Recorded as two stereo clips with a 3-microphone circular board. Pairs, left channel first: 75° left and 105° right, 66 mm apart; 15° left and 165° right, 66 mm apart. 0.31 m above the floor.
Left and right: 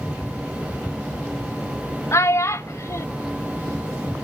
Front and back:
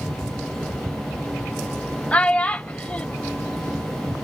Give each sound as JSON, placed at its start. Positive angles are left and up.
{"t": 2.1, "sound": "a child speaking", "azimuth_deg": 80, "distance_m": 0.6}